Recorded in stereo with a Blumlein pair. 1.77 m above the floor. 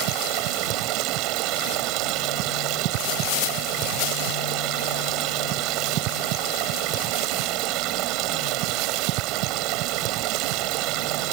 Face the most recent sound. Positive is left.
turn(degrees=-40)